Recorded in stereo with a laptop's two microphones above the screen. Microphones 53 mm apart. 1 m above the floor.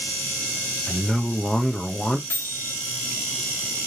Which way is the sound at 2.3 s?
45° left (ahead or behind).